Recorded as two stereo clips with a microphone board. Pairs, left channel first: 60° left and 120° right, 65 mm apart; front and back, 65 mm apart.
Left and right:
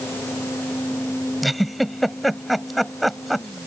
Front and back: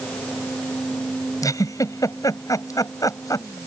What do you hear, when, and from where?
1.4 s a giggle: 30° right